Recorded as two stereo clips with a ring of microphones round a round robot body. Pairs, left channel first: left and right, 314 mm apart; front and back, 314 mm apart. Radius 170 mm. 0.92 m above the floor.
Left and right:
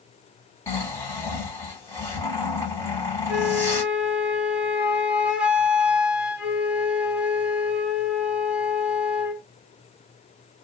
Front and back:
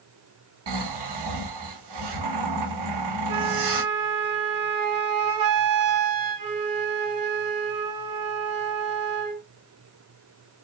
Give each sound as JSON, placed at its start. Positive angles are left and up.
{"t": 0.7, "sound": "snoring", "azimuth_deg": 170, "distance_m": 3.0}
{"t": 3.3, "sound": "a flute", "azimuth_deg": -175, "distance_m": 1.3}